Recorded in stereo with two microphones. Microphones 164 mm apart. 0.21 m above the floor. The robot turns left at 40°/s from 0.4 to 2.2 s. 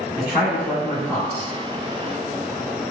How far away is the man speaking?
About 1.8 m.